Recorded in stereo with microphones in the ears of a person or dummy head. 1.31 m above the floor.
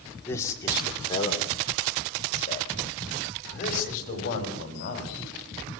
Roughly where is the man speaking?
Centre.